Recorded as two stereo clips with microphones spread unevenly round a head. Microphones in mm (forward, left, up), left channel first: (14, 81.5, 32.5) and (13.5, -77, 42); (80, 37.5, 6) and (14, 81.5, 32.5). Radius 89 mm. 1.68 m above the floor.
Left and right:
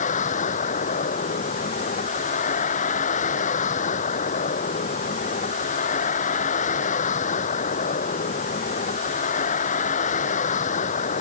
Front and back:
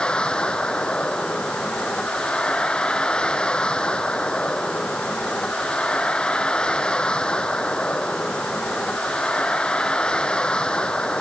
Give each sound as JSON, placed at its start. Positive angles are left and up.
{"t": 0.0, "sound": "a vehicle", "azimuth_deg": 45}